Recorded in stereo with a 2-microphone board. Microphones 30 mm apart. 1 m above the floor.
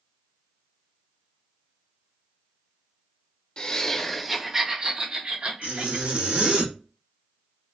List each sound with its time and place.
3.6 s laughter: 25° left (ahead or behind), 0.8 m; by 6.6 s 55° right (ahead or behind), 1.7 m
5.6 s a zipper: 70° right (ahead or behind), 1.4 m